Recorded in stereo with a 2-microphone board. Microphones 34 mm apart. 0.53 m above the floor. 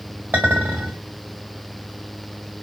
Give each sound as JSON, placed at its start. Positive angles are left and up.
{"t": 0.3, "sound": "a clink", "side_deg": -70, "distance_m": 1.7}